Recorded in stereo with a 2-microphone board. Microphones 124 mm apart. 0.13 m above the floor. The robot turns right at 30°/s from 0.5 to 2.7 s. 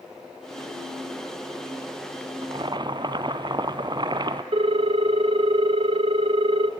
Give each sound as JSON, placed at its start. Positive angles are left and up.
{"t": 2.4, "sound": "boiling", "side_deg": -45, "distance_m": 0.6}
{"t": 4.5, "sound": "a ringtone", "side_deg": -50, "distance_m": 0.7}